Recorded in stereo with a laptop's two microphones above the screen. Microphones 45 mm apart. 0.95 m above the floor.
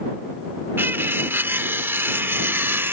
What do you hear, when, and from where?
0.8 s cutlery clinking: 55° right (ahead or behind)